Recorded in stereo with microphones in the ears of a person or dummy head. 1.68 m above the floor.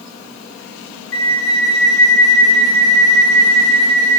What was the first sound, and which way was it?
A flute, 15° left (ahead or behind).